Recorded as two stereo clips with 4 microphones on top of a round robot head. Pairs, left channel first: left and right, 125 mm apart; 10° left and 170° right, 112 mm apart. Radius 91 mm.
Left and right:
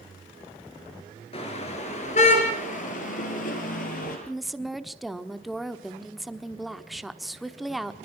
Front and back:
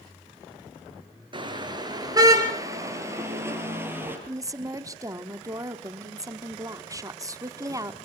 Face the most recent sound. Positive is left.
turn(degrees=180)